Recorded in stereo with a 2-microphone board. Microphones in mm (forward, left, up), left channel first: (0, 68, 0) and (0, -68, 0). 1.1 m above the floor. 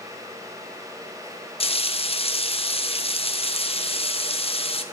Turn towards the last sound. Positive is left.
turn(degrees=45)  # may be behind; listen again after turning